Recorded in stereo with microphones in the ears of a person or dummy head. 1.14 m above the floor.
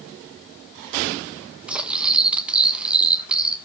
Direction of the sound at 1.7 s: 5° right (ahead or behind).